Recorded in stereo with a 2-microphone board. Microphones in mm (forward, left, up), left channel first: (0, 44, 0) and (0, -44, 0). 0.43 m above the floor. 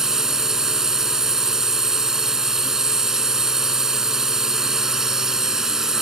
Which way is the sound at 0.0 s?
5° right (ahead or behind).